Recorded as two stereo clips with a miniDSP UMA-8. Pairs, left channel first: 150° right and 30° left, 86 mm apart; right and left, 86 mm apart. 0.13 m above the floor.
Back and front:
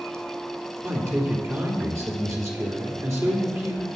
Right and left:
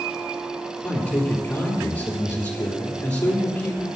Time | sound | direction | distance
0.8 | a man speaking | 20° right | 3.5 m